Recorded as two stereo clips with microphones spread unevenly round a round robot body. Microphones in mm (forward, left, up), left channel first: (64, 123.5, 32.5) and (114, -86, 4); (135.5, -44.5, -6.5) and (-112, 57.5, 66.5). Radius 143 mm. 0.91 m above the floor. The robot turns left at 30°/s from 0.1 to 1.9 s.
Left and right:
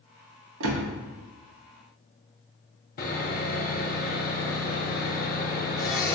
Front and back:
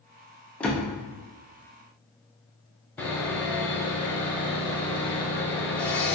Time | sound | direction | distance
0.6 | a door slam | 105° right | 0.5 m
3.0 | sawing | 75° left | 0.7 m